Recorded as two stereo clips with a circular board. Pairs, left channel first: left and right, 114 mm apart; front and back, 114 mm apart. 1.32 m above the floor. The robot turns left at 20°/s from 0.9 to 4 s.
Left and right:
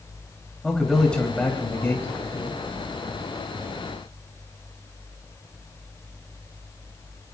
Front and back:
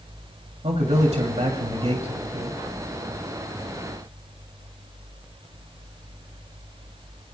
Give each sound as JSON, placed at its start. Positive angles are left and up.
{"t": 0.6, "sound": "a man speaking", "azimuth_deg": 175, "distance_m": 3.0}